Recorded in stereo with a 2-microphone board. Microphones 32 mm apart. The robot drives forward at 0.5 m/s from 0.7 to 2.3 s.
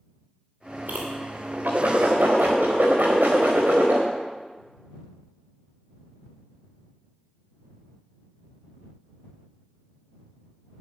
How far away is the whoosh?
About 4.5 m.